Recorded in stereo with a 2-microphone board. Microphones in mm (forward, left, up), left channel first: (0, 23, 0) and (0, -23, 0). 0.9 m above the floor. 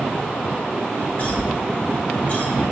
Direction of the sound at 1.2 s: 30° left (ahead or behind).